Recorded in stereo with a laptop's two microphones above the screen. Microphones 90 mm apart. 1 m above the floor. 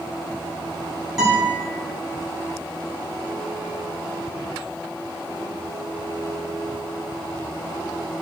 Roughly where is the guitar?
Centre.